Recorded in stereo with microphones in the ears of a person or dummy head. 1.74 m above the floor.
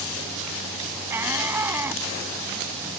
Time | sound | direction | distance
1.1 | a shout | 10° right (ahead or behind) | ?